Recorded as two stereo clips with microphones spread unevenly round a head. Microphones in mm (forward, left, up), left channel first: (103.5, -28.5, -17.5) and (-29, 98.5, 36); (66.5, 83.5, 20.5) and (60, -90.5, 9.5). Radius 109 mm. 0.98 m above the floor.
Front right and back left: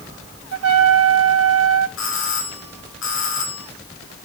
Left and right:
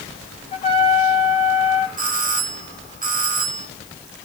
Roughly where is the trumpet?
Behind left.